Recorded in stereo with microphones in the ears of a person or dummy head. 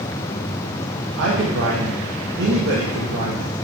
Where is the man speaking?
65° right (ahead or behind), 1.3 m.